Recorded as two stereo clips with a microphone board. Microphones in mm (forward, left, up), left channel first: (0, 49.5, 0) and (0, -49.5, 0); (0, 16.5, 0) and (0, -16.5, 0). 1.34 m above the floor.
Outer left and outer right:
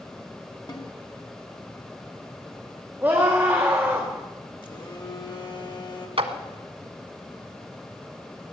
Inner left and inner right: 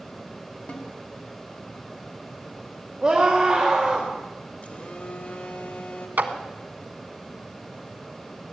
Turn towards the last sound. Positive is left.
turn(degrees=-70)  # may be behind; listen again after turning